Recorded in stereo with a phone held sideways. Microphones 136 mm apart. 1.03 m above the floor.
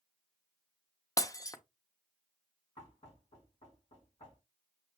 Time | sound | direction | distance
1.2 | breaking glass | 25° left (ahead or behind) | 0.6 m
2.8 | knocking | 50° left (ahead or behind) | 2 m